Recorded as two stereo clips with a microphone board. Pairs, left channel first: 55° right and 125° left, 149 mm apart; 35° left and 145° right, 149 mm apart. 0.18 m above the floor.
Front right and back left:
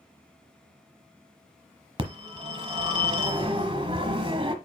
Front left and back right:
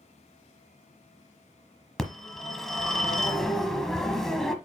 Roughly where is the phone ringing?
Behind left.